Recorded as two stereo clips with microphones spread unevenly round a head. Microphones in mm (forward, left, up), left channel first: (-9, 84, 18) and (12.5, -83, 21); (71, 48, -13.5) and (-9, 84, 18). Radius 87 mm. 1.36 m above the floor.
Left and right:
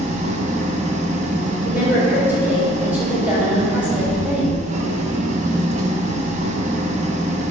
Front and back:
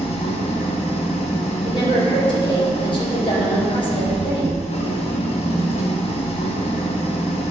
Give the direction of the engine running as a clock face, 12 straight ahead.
1 o'clock.